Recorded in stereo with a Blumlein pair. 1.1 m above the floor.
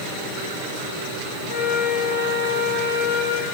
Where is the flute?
50° left, 2.5 m.